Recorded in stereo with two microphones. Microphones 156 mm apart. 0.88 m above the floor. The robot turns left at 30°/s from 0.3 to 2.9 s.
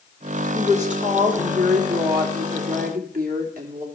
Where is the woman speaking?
45° right, 2.5 m; by 3.9 s 115° right, 2.5 m.